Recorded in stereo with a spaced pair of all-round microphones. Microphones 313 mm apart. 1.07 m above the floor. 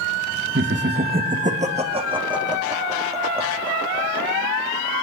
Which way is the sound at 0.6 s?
40° right (ahead or behind).